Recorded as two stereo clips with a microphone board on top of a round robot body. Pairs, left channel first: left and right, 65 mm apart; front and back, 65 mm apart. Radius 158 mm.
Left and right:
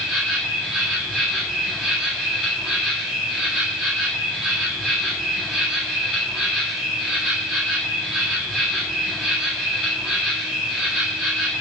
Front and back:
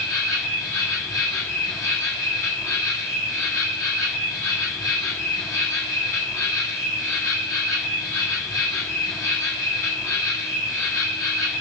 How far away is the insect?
About 2 m.